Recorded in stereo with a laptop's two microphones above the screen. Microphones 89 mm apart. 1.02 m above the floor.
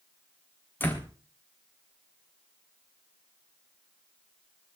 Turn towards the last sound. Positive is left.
turn(degrees=20)  # may be behind; listen again after turning